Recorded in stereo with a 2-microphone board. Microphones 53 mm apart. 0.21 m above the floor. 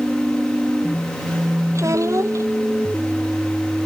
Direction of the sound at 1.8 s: 65° right (ahead or behind).